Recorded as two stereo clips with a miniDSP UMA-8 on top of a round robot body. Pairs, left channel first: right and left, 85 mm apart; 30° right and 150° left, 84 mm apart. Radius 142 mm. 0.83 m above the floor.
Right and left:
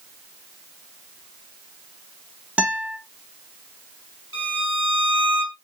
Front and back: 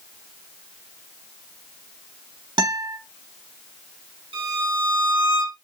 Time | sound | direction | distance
2.6 | a guitar | 165° left | 1.4 m
4.3 | a violin | 140° left | 2.5 m